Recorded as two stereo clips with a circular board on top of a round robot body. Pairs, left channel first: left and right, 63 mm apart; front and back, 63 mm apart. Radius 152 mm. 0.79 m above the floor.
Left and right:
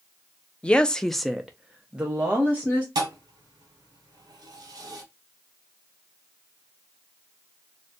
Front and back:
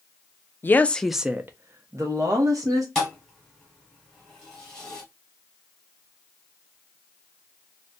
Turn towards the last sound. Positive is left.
turn(degrees=-85)